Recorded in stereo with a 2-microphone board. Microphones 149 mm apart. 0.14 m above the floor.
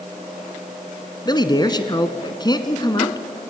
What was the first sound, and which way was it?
A man speaking, 30° left (ahead or behind).